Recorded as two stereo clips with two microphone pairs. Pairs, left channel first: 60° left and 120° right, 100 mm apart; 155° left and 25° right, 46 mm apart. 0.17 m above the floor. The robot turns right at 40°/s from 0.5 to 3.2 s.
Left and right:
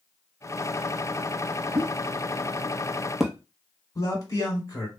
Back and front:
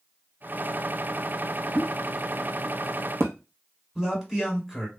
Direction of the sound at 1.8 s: 90° right.